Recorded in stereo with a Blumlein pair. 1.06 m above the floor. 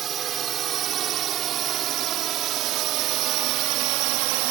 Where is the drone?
30° right; by 4.5 s 45° right.